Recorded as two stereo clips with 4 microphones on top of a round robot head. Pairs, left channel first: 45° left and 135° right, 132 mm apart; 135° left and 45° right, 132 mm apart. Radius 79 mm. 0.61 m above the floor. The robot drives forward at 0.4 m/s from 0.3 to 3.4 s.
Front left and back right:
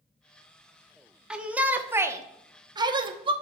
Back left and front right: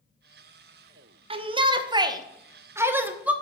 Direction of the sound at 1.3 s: 55° right.